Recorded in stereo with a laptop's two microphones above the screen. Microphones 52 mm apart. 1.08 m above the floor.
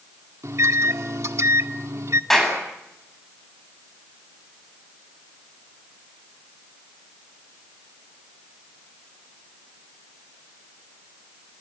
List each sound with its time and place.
0.4 s a microwave: 65° right (ahead or behind), 1.7 m
2.3 s a clap: 10° left (ahead or behind), 8 m